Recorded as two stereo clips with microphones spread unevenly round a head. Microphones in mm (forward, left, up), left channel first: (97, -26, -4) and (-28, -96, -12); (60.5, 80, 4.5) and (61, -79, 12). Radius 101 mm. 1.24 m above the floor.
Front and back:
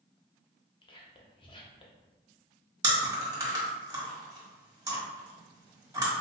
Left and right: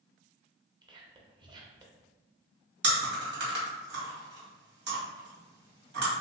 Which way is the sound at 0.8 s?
25° right.